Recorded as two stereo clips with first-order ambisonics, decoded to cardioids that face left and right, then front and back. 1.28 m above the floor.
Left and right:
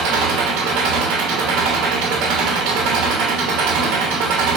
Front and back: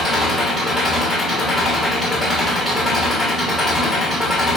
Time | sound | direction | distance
0.0 | an engine running | 90° right | 0.9 m